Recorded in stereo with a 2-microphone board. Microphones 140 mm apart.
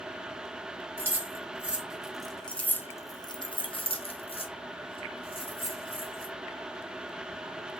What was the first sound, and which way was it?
Keys jangling, 15° right (ahead or behind).